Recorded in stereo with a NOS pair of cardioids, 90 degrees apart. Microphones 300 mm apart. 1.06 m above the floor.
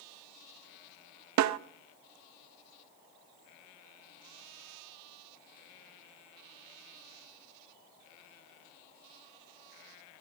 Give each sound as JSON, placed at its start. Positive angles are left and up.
{"t": 1.4, "sound": "a snare drum", "azimuth_deg": -65, "distance_m": 0.6}